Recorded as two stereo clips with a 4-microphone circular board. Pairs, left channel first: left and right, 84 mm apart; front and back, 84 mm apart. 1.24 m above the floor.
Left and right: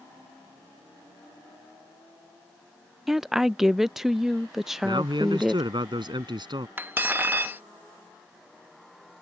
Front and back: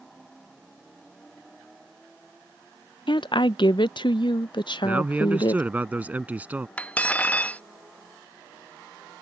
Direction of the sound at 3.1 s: 5° right.